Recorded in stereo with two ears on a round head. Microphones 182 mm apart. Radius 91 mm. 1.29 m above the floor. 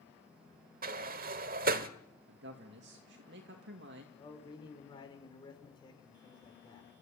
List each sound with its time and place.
0.8 s a sliding door: 45° right (ahead or behind), 1.3 m
2.3 s a man speaking: 60° right (ahead or behind), 2.5 m
4.2 s a man speaking: 20° left (ahead or behind), 4.5 m